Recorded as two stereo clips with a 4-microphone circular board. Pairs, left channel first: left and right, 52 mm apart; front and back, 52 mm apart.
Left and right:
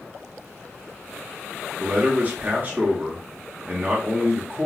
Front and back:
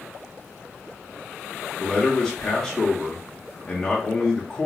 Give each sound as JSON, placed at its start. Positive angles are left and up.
{"t": 1.8, "sound": "a man speaking", "azimuth_deg": -75, "distance_m": 0.8}